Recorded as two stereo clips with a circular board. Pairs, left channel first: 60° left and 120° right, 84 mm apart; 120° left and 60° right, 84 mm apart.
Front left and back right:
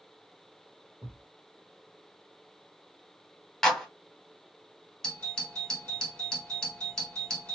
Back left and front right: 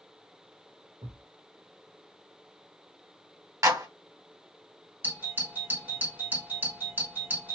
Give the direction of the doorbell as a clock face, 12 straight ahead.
1 o'clock.